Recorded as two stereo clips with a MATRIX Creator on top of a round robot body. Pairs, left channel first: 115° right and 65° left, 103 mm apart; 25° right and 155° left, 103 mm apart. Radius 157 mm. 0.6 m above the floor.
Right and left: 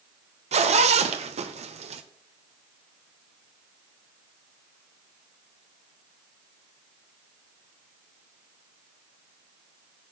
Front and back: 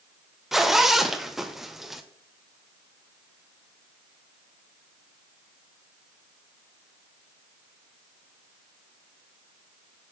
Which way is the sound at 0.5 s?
70° left.